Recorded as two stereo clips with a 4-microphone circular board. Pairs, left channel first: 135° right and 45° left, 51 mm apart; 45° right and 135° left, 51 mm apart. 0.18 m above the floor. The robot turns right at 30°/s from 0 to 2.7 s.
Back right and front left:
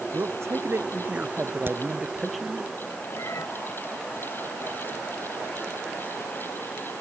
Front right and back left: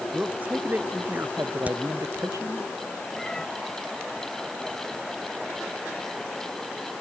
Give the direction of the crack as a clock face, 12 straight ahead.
9 o'clock.